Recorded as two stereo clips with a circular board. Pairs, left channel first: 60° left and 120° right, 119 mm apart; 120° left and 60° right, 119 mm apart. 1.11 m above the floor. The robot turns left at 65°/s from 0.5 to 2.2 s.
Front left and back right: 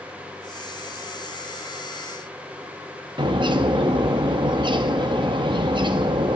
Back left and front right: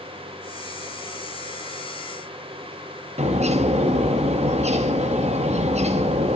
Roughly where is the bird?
Right.